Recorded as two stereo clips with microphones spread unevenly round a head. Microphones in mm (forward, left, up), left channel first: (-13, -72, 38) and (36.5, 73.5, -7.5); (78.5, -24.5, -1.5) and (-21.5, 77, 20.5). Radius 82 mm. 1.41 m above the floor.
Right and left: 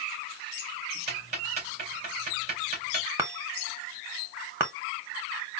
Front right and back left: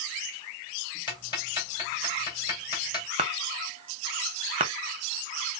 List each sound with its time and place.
1.1 s ticking: 15° left, 2.5 m
3.2 s a chime: 155° left, 0.7 m